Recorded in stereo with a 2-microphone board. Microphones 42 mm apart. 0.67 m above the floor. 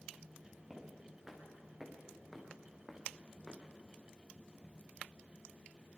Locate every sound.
0.7 s footsteps: 5° right (ahead or behind), 6 m; by 3.6 s 5° left (ahead or behind), 4.5 m